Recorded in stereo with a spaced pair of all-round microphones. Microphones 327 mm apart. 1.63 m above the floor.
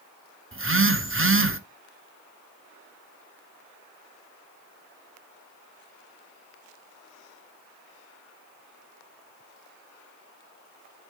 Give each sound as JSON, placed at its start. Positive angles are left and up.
{"t": 0.5, "sound": "a phone buzzing", "side_deg": -40, "distance_m": 0.8}